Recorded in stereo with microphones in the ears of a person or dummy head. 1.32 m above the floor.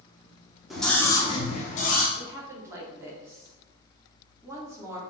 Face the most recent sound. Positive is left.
turn(degrees=-20)  # may be behind; listen again after turning